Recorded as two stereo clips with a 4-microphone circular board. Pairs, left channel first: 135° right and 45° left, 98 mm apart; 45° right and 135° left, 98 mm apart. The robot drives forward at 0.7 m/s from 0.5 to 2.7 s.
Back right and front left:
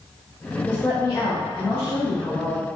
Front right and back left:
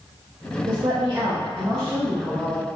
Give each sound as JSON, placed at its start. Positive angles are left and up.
{"t": 0.7, "sound": "a woman speaking", "azimuth_deg": 160, "distance_m": 0.6}